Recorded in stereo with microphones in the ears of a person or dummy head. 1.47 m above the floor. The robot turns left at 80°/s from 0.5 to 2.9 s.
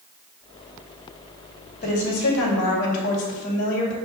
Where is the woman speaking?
130° left, 2.5 m; by 4.0 s 45° left, 2.5 m.